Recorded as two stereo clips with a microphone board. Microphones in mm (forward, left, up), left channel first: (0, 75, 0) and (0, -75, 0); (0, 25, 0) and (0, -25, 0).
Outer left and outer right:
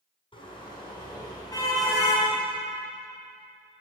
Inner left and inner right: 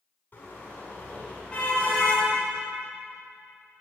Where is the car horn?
35° left (ahead or behind), 6 m; by 2.3 s 15° left (ahead or behind), 4.5 m.